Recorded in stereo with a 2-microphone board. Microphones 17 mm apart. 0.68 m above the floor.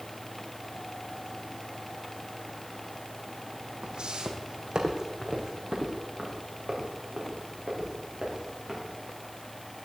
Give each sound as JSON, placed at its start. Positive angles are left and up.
{"t": 3.8, "sound": "footsteps", "side_deg": -65, "distance_m": 1.8}